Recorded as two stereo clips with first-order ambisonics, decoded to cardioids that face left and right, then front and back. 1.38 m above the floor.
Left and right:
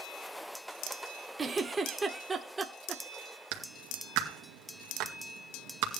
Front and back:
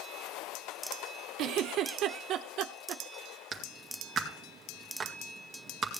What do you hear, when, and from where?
1.4 s a giggle: 160° right, 1.2 m
3.5 s a clap: 110° right, 2 m